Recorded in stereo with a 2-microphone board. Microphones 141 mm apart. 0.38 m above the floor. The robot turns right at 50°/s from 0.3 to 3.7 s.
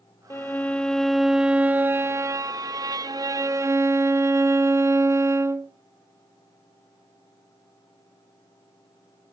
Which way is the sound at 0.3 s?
15° left (ahead or behind).